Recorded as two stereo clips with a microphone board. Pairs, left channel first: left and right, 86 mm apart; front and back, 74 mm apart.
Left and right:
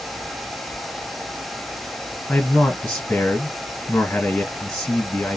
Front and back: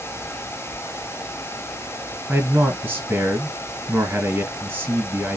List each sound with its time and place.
2.3 s a man speaking: 145° left, 1.9 m